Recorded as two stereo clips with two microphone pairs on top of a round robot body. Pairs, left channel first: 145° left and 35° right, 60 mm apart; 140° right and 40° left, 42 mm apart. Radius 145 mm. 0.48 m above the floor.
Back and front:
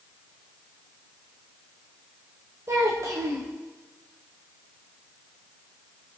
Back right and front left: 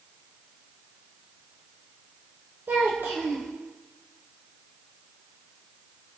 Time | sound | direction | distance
2.7 | a child speaking | 5° left | 1.4 m